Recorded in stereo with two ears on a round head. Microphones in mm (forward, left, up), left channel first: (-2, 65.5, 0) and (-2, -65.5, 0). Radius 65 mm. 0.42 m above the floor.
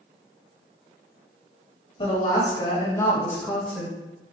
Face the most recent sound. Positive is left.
turn(degrees=0)  # may be behind; listen again after turning